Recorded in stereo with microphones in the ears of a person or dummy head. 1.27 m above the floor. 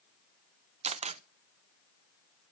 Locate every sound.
0.8 s a camera shutter: 35° right (ahead or behind), 0.5 m